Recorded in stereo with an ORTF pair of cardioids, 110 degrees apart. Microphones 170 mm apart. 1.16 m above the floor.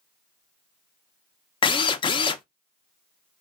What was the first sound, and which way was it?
A drill, 30° left.